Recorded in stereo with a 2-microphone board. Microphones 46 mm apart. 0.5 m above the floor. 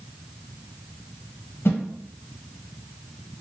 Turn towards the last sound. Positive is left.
turn(degrees=70)  # may be behind; listen again after turning